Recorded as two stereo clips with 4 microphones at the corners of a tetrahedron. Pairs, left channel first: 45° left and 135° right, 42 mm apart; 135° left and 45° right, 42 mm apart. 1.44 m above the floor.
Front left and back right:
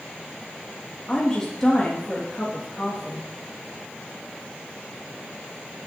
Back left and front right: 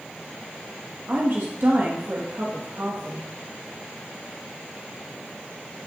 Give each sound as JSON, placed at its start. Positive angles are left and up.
{"t": 1.1, "sound": "a woman speaking", "azimuth_deg": -35, "distance_m": 2.0}